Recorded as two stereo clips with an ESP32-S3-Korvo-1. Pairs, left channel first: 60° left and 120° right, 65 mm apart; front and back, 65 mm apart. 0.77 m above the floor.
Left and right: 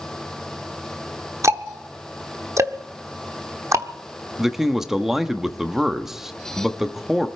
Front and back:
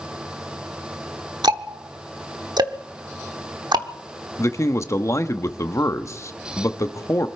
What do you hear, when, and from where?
1.4 s ticking: 165° right, 0.9 m
4.4 s a man speaking: 40° right, 0.9 m